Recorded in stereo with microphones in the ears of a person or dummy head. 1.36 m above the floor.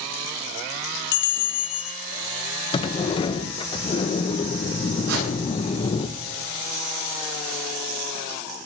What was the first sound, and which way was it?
A bell, 50° left (ahead or behind).